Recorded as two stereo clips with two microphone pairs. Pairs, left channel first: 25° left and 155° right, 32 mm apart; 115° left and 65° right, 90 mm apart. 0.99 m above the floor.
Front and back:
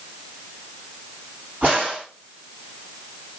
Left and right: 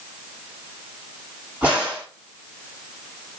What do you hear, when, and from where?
1.6 s a crack: 130° right, 3.5 m